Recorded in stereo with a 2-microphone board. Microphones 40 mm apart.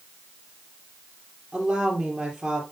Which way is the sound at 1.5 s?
10° right (ahead or behind).